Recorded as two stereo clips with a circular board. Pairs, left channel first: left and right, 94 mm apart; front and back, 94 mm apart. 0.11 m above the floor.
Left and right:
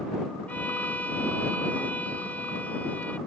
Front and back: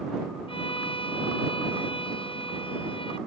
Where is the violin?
15° left.